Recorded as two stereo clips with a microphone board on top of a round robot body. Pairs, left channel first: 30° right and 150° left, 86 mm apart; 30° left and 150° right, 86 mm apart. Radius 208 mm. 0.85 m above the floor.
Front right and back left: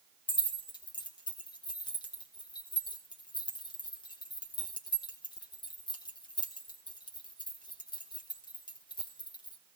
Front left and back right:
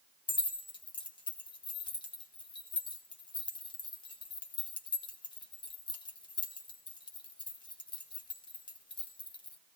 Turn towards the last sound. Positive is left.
turn(degrees=0)